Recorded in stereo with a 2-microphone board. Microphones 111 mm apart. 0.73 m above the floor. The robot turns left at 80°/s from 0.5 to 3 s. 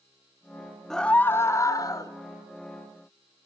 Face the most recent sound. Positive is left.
turn(degrees=5)